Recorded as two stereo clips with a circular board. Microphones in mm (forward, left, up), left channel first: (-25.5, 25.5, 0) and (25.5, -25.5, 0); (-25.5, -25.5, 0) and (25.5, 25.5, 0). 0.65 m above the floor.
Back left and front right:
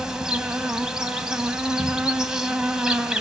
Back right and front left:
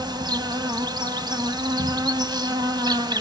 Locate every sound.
0.0 s an insect: 35° left, 2.0 m